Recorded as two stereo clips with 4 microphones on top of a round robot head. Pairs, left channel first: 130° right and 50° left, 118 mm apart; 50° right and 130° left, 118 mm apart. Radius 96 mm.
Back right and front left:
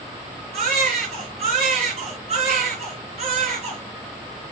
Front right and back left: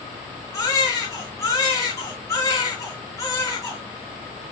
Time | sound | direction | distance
0.5 | a baby crying | 15° left | 4 m